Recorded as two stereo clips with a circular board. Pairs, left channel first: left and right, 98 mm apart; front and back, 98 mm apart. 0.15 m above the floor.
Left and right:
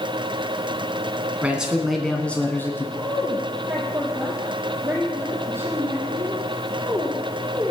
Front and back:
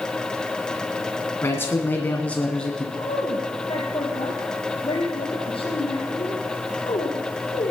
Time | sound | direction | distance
1.4 | a man speaking | 30° right | 1.6 m
3.0 | a woman speaking | 25° right | 2.5 m